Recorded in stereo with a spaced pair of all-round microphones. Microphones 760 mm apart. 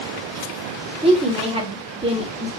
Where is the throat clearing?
No throat clearing in this recording.